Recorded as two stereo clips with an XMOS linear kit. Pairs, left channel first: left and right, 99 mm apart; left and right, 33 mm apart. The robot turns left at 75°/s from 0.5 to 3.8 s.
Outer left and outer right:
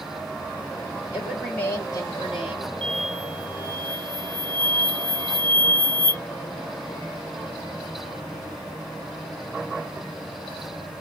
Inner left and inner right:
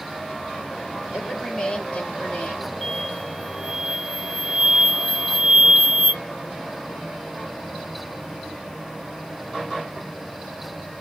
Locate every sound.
1.1 s a woman speaking: 165° right, 3 m; by 2.7 s 80° left, 3 m
2.8 s an explosion: 10° left, 0.8 m; by 6.2 s 60° right, 0.8 m